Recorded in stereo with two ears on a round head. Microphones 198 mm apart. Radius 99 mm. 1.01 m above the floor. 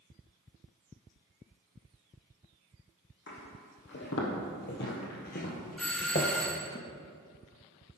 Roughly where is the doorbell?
Centre.